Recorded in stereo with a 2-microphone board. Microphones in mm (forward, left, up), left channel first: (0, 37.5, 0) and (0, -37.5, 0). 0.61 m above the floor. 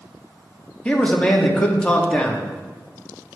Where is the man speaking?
15° left (ahead or behind), 0.7 m.